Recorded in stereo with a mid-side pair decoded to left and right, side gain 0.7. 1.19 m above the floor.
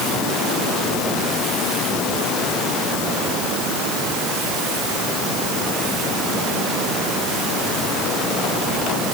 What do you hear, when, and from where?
Only background noise.